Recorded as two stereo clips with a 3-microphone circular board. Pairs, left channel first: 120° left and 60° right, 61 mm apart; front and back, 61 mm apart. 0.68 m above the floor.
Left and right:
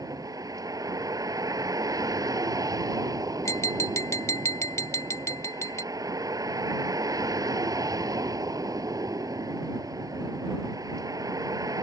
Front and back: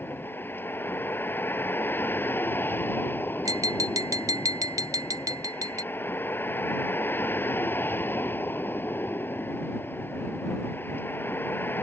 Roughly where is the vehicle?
Ahead right.